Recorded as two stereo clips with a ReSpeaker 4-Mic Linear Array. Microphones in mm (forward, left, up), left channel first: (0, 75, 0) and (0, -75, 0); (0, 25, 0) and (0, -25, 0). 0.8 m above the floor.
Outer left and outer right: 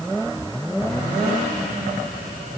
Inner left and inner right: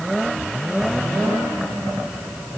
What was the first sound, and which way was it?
Only background noise.